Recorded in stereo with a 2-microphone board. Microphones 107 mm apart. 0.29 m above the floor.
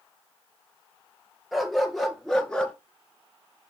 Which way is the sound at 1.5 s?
Centre (ahead or behind).